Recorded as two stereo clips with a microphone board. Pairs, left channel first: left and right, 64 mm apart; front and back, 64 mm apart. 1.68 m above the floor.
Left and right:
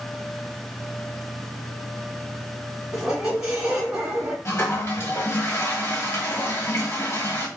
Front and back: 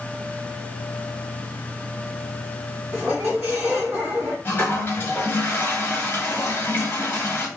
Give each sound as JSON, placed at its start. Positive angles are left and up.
{"t": 2.9, "sound": "a squeak", "azimuth_deg": -155, "distance_m": 1.7}
{"t": 4.5, "sound": "a toilet flushing", "azimuth_deg": 55, "distance_m": 1.3}